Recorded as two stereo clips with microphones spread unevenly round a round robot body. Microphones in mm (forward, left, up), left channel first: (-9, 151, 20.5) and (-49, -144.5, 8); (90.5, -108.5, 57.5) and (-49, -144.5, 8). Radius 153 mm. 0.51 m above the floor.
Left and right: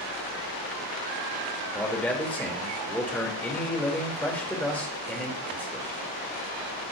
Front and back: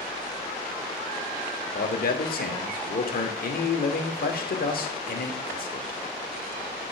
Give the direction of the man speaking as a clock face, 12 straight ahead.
12 o'clock.